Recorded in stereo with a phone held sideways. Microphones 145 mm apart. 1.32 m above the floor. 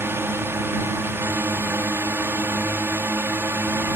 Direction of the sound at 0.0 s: 15° right (ahead or behind).